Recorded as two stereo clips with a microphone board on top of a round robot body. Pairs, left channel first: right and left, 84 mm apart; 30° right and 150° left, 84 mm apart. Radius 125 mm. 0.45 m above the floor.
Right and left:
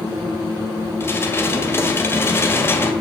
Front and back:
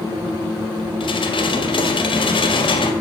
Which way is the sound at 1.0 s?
30° right.